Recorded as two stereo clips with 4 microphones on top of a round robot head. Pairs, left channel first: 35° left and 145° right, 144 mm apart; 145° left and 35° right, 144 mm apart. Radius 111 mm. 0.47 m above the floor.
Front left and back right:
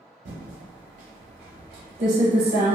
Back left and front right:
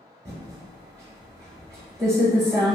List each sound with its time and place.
0.2 s typing on a keyboard: 110° right, 0.6 m